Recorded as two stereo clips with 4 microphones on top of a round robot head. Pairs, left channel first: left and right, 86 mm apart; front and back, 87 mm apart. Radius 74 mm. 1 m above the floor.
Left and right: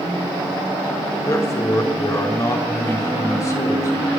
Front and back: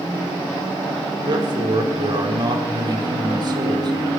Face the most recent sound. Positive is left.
turn(degrees=140)